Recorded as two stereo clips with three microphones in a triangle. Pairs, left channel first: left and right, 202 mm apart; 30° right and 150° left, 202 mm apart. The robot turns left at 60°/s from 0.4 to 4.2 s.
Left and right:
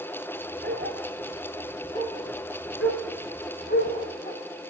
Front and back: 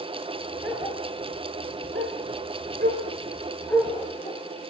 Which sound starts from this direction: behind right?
A dog barking, at 0.6 s.